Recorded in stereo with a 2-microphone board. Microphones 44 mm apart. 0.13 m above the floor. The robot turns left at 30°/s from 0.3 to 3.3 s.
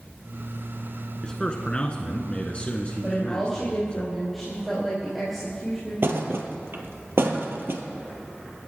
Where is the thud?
60° right (ahead or behind), 1.4 m.